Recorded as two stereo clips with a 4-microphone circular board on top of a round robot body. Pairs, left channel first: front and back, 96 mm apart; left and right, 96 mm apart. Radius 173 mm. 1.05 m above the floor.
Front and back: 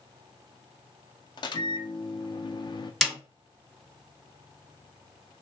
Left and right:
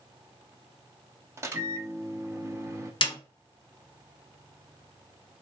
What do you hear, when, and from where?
1.4 s a microwave: 30° right, 0.6 m
3.0 s a snare drum: 90° left, 1.3 m